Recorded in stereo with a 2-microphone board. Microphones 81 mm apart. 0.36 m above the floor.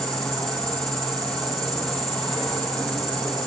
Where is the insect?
5° left (ahead or behind), 4.5 m.